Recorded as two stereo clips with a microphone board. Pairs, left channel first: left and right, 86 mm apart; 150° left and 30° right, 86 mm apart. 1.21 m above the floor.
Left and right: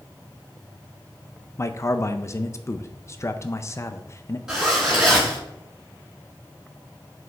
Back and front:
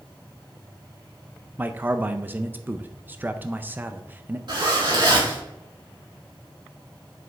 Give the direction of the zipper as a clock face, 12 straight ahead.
12 o'clock.